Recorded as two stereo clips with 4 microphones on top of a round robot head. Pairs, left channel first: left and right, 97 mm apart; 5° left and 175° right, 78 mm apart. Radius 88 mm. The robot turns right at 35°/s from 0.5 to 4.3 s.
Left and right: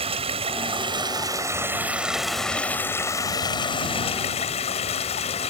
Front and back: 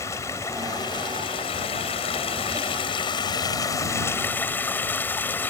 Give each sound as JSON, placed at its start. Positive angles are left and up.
{"t": 0.0, "sound": "running water", "azimuth_deg": -65}